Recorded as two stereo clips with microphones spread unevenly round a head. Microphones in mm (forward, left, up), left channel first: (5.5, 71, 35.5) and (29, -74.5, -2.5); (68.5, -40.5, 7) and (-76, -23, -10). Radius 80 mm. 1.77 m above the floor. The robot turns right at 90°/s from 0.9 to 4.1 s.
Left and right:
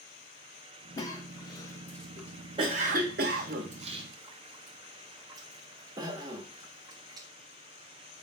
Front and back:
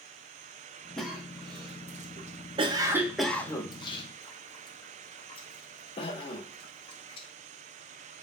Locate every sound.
1.0 s a cough: 70° left, 0.6 m; by 7.3 s 10° right, 0.6 m